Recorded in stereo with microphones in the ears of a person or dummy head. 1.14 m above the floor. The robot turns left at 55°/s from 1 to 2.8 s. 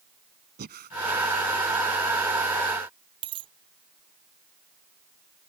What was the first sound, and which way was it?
Breathing, 45° right (ahead or behind).